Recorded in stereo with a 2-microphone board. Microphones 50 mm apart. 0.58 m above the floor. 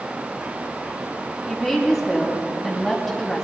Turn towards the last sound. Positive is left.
turn(degrees=5)  # may be behind; listen again after turning